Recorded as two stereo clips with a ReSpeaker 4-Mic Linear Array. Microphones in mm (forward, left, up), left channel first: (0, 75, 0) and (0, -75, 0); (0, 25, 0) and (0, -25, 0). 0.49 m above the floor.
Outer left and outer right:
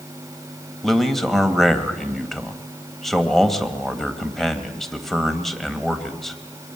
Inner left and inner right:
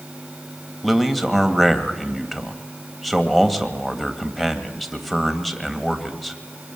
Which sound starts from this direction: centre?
A man speaking, at 0.8 s.